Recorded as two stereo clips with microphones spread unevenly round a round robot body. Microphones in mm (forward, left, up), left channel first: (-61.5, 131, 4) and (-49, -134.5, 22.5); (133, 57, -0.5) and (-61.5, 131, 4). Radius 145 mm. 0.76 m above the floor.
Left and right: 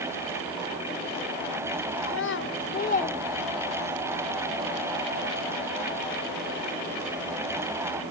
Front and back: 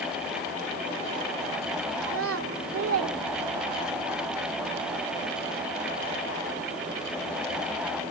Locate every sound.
2.0 s a child speaking: 135° left, 2.5 m; by 4.0 s 160° right, 1.4 m